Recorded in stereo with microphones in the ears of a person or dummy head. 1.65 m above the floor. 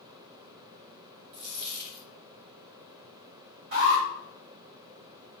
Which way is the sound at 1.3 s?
50° right (ahead or behind).